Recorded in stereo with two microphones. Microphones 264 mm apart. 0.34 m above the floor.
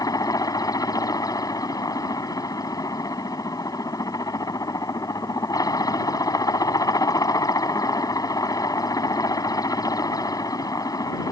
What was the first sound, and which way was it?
A helicopter, 15° left (ahead or behind).